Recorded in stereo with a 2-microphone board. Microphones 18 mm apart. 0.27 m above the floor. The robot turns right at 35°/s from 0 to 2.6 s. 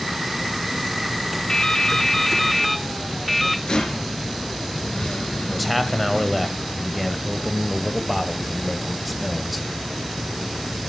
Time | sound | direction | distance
1.5 | dripping | 140° left | 0.6 m
3.7 | a rattle | 50° left (ahead or behind) | 3 m
5.5 | a man speaking | 5° left (ahead or behind) | 1.3 m